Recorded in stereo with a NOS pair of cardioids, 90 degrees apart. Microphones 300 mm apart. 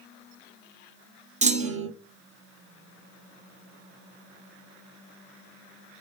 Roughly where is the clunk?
Ahead right.